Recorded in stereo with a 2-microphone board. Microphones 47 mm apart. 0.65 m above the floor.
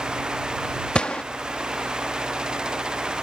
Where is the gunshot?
20° left (ahead or behind).